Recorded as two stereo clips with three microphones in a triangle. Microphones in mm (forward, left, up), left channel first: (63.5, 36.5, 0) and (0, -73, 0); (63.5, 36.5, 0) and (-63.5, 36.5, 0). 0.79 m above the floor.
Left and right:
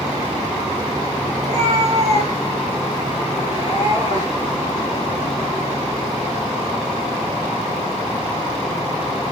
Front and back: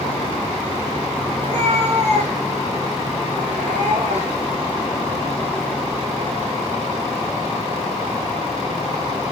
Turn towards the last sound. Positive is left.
turn(degrees=170)